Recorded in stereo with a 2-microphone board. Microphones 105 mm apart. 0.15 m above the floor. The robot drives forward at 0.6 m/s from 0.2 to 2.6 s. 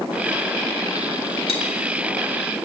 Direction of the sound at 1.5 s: 70° left (ahead or behind).